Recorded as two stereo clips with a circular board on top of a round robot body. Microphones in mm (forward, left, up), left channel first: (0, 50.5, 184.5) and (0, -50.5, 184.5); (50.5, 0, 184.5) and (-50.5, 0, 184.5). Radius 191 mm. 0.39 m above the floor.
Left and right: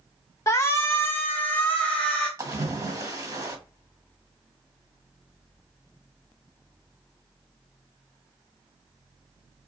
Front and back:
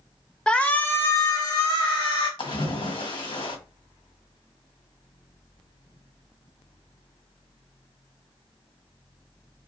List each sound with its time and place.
0.5 s a shout: 70° left, 1.1 m; by 2.3 s 15° left, 1.4 m
2.4 s a splash: 35° right, 1.9 m